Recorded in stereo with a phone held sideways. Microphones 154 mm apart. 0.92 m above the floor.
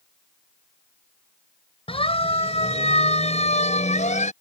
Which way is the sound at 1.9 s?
40° left (ahead or behind).